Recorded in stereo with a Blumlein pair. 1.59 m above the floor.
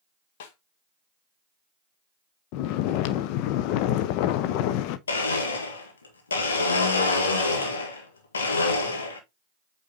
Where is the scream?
No scream in this recording.